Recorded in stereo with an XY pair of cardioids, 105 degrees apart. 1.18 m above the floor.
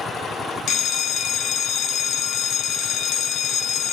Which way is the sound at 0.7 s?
70° left.